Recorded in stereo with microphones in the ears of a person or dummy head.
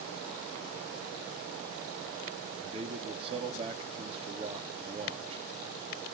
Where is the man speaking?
35° right (ahead or behind), 2 m.